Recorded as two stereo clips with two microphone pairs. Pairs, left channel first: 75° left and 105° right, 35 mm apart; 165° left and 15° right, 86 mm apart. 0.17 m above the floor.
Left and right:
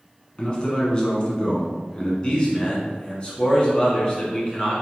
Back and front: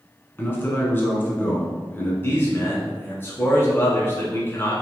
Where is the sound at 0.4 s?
120° left, 1.3 m.